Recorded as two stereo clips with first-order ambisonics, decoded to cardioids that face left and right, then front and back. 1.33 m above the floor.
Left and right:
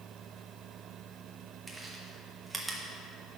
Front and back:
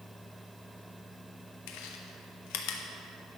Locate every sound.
1.7 s chewing: 5° right, 1.2 m